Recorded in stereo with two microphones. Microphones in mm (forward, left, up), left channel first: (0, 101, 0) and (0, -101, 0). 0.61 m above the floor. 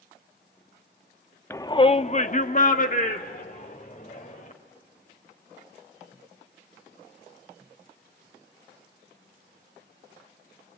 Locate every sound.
1.5 s a shout: 10° left (ahead or behind), 0.6 m; by 4.5 s 45° left (ahead or behind), 2 m